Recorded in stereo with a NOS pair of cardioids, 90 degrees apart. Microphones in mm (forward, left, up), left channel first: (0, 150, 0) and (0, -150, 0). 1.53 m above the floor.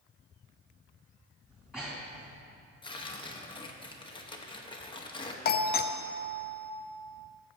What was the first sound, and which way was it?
Breathing, 5° right.